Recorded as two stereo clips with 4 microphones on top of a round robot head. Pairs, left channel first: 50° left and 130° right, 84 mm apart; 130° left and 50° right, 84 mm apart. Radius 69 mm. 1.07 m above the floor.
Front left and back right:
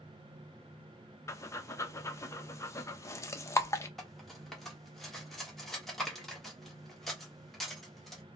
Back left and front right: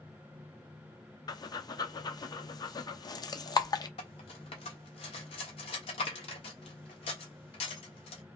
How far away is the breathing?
About 0.8 m.